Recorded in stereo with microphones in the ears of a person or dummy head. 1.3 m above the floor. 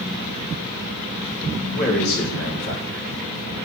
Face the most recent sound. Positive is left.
turn(degrees=50)  # may be behind; listen again after turning